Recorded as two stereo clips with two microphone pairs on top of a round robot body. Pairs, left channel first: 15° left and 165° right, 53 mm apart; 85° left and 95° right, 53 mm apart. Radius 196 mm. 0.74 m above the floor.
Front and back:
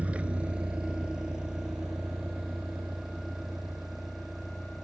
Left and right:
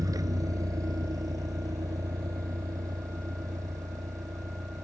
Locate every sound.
0.0 s a vehicle: 100° right; by 4.8 s 80° right